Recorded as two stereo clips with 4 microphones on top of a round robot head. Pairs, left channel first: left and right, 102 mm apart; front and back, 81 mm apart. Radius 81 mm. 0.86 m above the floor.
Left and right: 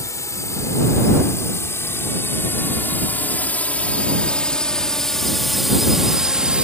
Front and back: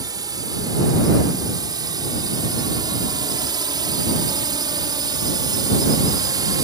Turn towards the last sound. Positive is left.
turn(degrees=-165)